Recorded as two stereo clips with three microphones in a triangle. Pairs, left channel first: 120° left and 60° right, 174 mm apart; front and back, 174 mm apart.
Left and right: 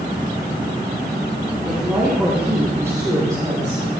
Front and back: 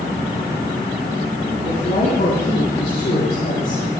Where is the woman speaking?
25° left, 4.5 m; by 4.0 s straight ahead, 4.5 m.